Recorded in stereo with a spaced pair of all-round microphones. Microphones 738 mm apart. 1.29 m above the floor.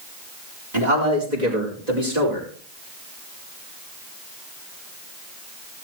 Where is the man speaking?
65° right (ahead or behind), 4.5 m; by 2.5 s 60° right (ahead or behind), 5.5 m.